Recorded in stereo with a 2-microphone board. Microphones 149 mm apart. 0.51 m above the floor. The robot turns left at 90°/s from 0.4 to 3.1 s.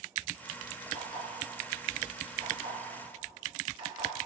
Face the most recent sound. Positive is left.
turn(degrees=-35)  # may be behind; listen again after turning